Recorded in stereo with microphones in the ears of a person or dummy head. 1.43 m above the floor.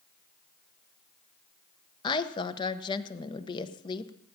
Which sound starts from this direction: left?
A woman speaking, at 2.0 s.